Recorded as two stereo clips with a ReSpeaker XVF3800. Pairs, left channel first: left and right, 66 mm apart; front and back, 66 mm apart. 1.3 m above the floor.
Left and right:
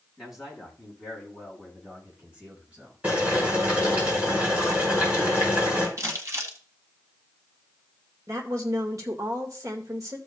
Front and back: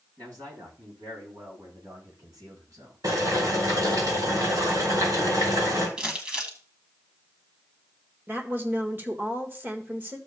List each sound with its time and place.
0.2 s a man speaking: 175° right, 8 m; by 3.0 s 155° right, 6.5 m
3.0 s boiling: 160° right, 5.5 m
6.0 s crumpling: 110° right, 1.9 m
8.3 s a woman speaking: 125° right, 1.8 m